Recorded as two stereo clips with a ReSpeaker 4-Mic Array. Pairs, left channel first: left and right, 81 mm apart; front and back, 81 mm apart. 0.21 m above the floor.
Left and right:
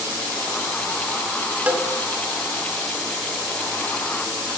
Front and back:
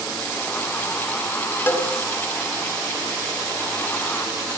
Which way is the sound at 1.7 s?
35° right.